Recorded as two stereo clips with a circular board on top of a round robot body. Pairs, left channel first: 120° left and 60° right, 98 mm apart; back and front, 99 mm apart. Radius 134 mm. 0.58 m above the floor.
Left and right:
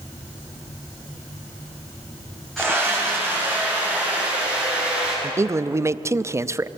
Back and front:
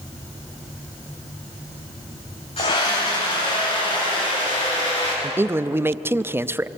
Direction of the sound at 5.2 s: 40° right.